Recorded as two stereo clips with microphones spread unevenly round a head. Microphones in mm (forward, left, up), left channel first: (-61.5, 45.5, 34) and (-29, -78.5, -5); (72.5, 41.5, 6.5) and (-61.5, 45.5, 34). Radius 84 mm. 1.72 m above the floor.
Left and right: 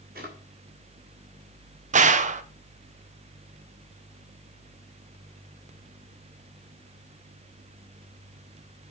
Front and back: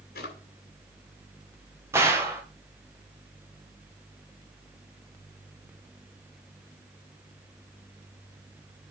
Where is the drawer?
35° right, 2 m.